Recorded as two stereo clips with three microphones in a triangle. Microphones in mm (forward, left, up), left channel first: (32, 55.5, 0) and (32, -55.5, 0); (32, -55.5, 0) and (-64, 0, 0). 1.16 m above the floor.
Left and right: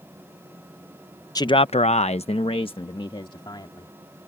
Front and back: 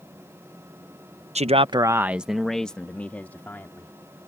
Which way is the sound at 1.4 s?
145° left.